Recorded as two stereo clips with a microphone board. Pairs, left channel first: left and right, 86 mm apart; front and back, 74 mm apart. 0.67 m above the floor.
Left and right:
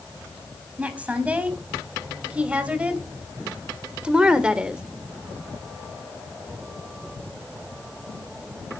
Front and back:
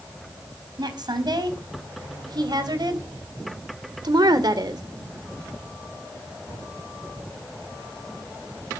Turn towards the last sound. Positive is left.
turn(degrees=-170)